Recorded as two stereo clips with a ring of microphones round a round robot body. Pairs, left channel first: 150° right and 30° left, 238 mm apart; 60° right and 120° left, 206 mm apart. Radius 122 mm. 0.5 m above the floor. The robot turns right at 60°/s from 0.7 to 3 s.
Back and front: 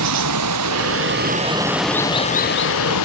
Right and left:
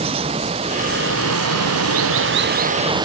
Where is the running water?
50° left; by 3.0 s 170° right.